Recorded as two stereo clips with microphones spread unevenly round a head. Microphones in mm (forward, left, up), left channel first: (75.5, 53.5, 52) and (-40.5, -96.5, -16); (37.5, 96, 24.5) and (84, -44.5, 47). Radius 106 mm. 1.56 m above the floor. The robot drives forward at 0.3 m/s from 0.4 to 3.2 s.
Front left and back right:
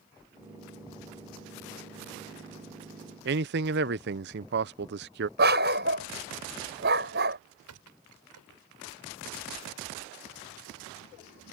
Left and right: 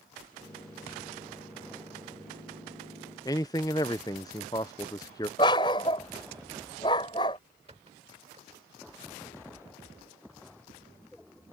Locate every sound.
3.2 s a man speaking: 175° right
5.4 s a dog barking: straight behind
7.7 s a squeak: 130° right